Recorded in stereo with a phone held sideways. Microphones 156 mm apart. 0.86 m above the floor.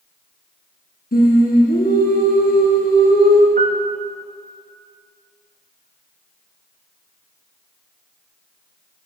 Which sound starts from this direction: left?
Singing, at 1.1 s.